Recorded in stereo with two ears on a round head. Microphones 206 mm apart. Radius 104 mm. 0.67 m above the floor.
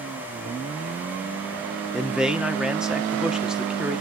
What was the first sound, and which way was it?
A man speaking, 5° right (ahead or behind).